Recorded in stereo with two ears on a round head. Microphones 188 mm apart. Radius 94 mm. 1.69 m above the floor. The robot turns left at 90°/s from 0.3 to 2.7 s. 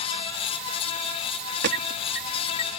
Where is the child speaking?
No child speaking in this recording.